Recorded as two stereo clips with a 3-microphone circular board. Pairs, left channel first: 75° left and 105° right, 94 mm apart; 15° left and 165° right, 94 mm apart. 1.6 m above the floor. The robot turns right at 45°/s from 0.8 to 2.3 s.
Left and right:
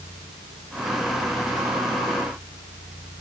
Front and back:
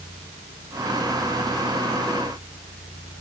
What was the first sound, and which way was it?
Only background noise.